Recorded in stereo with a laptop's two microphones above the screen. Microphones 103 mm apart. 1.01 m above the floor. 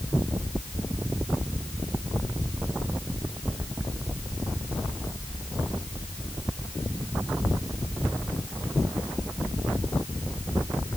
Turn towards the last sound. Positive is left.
No sound to turn to.